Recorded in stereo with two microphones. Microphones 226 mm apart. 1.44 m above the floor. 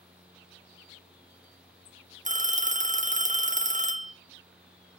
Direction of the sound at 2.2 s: 35° right (ahead or behind).